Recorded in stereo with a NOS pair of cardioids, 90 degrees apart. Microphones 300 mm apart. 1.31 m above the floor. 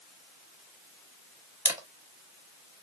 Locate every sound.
1.6 s a camera shutter: 5° right, 0.9 m